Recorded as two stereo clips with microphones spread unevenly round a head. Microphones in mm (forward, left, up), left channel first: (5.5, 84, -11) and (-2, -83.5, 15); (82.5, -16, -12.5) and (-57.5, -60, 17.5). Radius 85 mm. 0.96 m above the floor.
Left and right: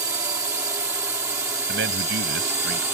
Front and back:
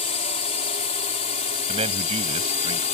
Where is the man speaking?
115° right.